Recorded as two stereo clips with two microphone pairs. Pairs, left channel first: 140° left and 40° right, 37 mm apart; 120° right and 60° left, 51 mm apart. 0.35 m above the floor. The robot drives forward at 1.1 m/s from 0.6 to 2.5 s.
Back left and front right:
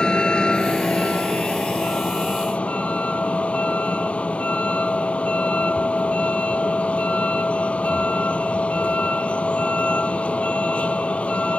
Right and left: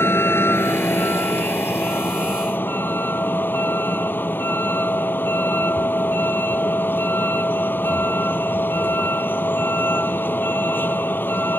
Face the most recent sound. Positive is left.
turn(degrees=-165)